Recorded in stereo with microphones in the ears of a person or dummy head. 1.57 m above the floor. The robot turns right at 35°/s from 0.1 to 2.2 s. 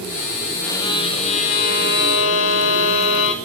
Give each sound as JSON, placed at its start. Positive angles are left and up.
{"t": 0.6, "sound": "a violin", "azimuth_deg": 15, "distance_m": 2.5}